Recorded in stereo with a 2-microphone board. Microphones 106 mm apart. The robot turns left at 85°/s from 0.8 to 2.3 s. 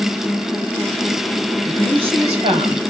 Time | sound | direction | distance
1.7 | a woman speaking | 30° right | 3.5 m